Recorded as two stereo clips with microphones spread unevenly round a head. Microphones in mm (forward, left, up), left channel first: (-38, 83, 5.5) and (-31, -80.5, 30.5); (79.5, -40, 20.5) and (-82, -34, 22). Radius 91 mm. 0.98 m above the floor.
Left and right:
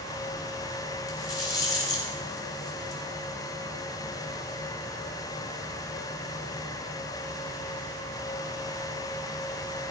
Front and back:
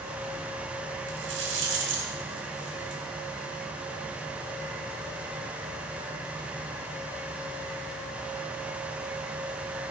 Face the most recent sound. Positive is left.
turn(degrees=160)